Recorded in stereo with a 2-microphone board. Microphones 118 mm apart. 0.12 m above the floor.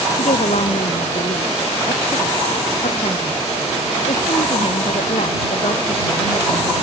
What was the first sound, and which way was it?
A woman speaking, 80° left.